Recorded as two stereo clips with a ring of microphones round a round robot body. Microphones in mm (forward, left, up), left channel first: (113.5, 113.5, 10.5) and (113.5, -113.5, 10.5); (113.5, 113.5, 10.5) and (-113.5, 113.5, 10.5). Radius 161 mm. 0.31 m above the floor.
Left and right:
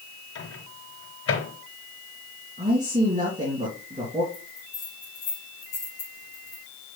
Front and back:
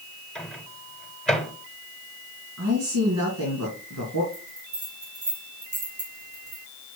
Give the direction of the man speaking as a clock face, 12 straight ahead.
5 o'clock.